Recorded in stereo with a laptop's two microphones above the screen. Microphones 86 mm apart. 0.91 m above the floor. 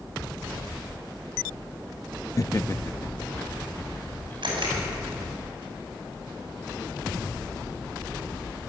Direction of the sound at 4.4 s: 70° right (ahead or behind).